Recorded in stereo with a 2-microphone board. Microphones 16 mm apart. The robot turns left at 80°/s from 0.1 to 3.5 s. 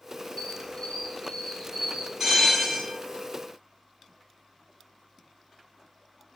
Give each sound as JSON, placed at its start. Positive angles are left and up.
{"t": 0.4, "sound": "a squeak", "azimuth_deg": 100, "distance_m": 0.8}
{"t": 2.2, "sound": "a bell", "azimuth_deg": -150, "distance_m": 1.8}